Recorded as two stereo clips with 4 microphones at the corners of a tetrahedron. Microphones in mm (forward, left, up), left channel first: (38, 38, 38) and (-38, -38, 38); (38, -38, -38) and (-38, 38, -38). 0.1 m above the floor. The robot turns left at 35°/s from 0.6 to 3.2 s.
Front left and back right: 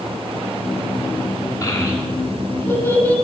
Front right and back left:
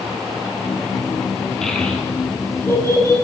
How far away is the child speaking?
About 1.0 m.